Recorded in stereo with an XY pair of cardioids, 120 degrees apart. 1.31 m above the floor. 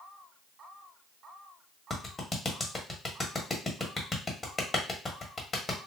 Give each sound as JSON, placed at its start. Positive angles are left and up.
{"t": 1.9, "sound": "a clap", "azimuth_deg": 20, "distance_m": 1.2}